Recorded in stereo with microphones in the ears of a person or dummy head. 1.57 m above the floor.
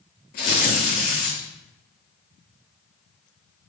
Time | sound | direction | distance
0.3 | tearing paper | 45° left (ahead or behind) | 1.4 m